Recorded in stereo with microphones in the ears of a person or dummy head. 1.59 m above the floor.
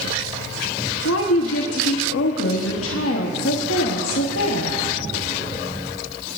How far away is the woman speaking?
About 1.1 m.